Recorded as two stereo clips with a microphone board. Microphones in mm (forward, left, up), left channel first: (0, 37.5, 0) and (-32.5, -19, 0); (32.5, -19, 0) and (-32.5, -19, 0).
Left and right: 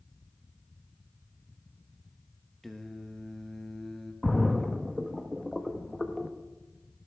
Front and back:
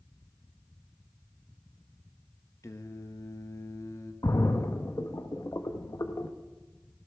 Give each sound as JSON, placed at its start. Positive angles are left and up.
{"t": 2.6, "sound": "singing", "azimuth_deg": -25, "distance_m": 0.9}
{"t": 4.2, "sound": "a splash", "azimuth_deg": -30, "distance_m": 0.8}